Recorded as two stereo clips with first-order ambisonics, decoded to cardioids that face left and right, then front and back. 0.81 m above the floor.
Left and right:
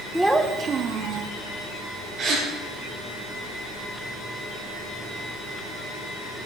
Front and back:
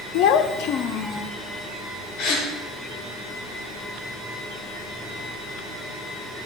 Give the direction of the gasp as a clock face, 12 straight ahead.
1 o'clock.